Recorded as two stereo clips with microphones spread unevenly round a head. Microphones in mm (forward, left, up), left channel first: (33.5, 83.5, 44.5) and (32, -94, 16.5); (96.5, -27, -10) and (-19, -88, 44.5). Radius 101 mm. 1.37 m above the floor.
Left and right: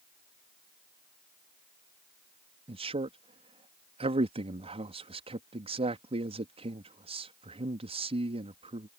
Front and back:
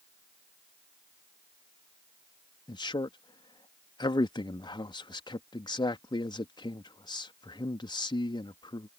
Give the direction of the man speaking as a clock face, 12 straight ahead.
1 o'clock.